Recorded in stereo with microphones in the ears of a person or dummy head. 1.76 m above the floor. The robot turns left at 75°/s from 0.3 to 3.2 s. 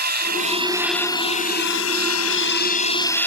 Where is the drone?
135° right; by 3.3 s 10° left.